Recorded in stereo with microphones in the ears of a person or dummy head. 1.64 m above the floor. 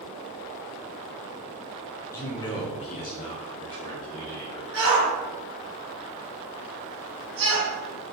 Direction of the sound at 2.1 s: 20° left (ahead or behind).